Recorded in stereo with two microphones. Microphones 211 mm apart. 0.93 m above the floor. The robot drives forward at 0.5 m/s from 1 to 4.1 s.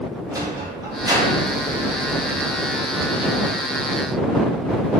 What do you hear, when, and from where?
0.3 s a sliding door: 20° right (ahead or behind), 2 m; by 3.5 s 35° right (ahead or behind), 1.1 m